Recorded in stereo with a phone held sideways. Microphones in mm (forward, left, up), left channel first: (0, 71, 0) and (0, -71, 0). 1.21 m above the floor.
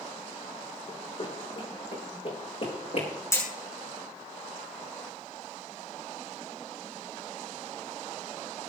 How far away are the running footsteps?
About 4 m.